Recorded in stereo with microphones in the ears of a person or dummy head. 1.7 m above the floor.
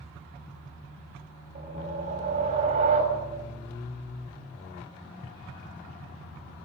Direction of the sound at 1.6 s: 40° right (ahead or behind).